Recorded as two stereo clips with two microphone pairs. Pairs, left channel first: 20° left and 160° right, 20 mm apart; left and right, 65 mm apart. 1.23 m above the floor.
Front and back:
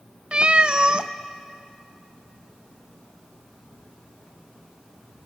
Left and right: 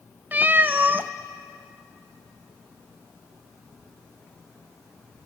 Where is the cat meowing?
140° right, 0.6 m.